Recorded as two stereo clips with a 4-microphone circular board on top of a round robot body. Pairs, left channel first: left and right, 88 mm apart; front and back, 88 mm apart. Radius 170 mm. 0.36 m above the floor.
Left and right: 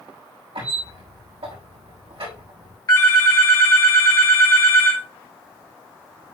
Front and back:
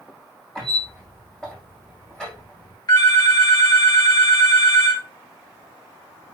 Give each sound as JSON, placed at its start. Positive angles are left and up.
{"t": 0.6, "sound": "a squeak", "azimuth_deg": -85, "distance_m": 5.0}
{"t": 2.9, "sound": "a phone ringing", "azimuth_deg": 40, "distance_m": 2.5}